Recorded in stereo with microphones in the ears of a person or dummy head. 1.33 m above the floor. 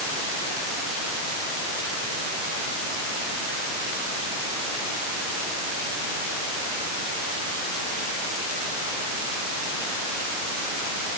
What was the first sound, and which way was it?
Only background noise.